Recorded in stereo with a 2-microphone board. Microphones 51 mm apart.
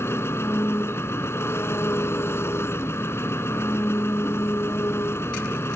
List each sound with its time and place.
0.0 s an engine running: 55° left (ahead or behind)